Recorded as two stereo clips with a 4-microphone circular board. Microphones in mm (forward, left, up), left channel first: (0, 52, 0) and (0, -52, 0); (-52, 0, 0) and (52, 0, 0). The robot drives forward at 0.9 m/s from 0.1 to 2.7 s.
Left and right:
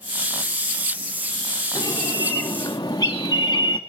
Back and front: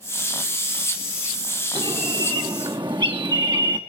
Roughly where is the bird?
Ahead left.